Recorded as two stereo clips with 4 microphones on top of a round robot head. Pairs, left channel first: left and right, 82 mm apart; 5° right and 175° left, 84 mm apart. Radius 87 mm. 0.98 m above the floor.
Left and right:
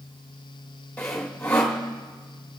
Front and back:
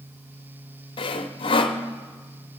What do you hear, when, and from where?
1.0 s sawing: 15° left, 0.9 m